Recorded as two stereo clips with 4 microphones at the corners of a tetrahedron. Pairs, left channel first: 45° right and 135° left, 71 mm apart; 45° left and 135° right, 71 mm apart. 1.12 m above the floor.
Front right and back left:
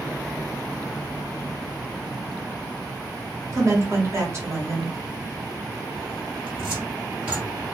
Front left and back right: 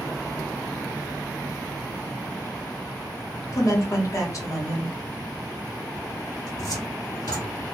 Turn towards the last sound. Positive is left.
turn(degrees=65)